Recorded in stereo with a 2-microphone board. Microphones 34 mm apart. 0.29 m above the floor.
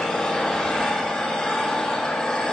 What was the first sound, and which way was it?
An engine running, 30° left (ahead or behind).